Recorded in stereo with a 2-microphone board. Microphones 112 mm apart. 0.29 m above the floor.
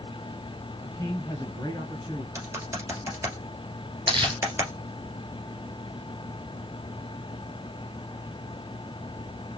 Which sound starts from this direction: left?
A man speaking, at 0.8 s.